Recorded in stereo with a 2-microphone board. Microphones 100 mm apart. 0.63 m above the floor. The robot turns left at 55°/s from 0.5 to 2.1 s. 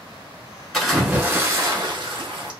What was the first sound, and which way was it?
A splash, 10° left.